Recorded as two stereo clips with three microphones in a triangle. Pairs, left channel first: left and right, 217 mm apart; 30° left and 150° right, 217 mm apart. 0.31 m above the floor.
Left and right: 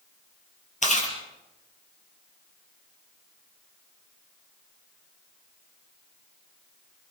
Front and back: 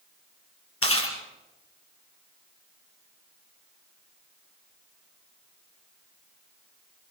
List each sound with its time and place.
0.8 s chewing: 35° left, 4 m